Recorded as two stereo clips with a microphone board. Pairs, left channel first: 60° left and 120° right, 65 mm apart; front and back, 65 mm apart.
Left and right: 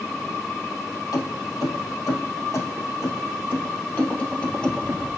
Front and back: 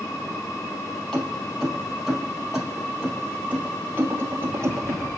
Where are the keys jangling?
80° left, 3 m; by 5.1 s 135° left, 2.5 m.